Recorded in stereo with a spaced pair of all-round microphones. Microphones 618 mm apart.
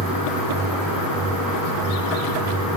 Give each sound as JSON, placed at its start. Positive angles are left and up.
{"t": 0.0, "sound": "a fan", "side_deg": 0, "distance_m": 7.0}